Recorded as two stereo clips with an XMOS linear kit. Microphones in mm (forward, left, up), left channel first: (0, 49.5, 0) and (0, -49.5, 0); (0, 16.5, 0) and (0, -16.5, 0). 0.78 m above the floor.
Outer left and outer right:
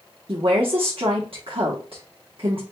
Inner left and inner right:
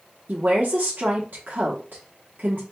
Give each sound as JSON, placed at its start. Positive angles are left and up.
{"t": 0.3, "sound": "a woman speaking", "side_deg": -65, "distance_m": 0.9}